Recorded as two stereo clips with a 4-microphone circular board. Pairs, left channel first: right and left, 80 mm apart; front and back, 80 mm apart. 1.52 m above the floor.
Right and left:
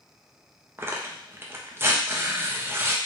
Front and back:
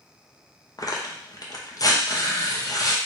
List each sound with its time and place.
0.8 s tearing paper: 35° left, 0.6 m